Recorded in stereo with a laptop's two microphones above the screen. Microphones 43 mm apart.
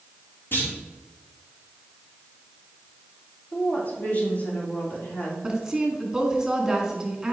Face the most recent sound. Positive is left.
turn(degrees=-15)  # may be behind; listen again after turning